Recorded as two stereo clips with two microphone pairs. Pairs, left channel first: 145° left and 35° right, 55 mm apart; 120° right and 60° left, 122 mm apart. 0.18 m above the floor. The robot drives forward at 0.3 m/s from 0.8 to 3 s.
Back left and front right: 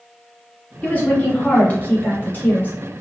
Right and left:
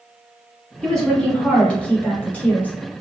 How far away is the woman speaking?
About 1.1 m.